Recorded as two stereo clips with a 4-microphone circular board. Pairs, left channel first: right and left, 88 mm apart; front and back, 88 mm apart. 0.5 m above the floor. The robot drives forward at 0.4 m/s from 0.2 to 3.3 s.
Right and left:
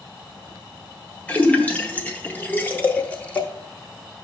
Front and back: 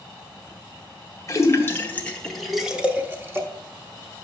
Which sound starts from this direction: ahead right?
A splash, at 1.3 s.